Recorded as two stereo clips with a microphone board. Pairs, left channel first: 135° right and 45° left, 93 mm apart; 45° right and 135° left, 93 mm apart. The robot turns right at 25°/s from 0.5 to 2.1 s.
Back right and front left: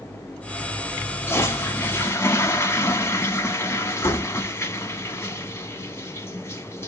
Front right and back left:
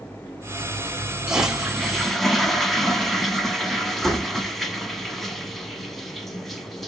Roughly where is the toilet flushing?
Behind right.